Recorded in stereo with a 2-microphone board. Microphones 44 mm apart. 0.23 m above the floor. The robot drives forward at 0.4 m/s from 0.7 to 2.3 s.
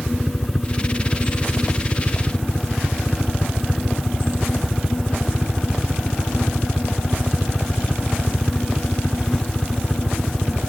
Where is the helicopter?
5° right (ahead or behind).